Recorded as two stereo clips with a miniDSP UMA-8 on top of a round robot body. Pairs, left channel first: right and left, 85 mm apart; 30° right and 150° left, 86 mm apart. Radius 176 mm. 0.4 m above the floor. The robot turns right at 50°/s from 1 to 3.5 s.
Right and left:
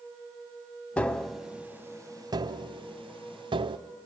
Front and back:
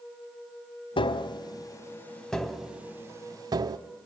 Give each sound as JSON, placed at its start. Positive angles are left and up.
{"t": 1.0, "sound": "tapping", "azimuth_deg": -15, "distance_m": 0.6}